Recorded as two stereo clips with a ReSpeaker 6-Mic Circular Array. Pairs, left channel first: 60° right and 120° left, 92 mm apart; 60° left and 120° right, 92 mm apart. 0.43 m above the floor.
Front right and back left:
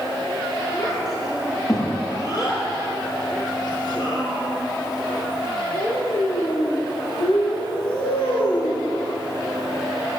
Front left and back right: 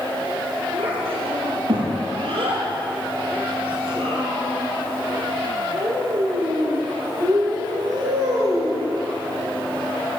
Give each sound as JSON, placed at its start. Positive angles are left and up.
{"t": 0.7, "sound": "a child speaking", "azimuth_deg": -115, "distance_m": 7.0}